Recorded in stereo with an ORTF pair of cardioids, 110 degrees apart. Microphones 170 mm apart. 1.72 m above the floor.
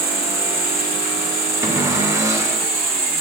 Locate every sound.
0.0 s an insect: 30° right, 2.5 m
1.6 s a cupboard door: 20° right, 1.5 m